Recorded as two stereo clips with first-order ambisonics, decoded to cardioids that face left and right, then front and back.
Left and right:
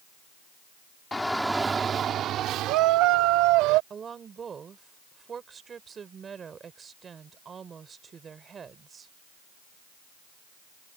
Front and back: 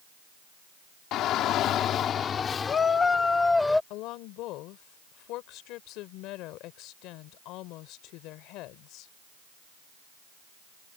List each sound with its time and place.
1.1 s a shout: 15° left; by 3.8 s 85° right
3.9 s a woman speaking: 25° right